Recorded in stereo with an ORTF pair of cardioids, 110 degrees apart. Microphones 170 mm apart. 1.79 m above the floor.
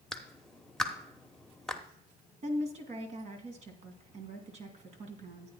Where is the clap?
5° left, 1.2 m.